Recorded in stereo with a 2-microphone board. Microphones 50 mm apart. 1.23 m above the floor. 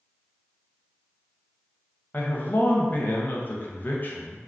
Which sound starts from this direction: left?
A man speaking, at 2.1 s.